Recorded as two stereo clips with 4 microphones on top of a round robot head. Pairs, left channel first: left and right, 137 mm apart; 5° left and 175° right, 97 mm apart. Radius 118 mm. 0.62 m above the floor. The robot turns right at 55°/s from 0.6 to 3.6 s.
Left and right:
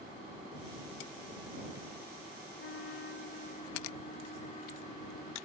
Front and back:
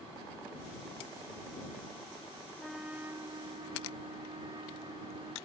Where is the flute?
90° left; by 5.4 s 145° left.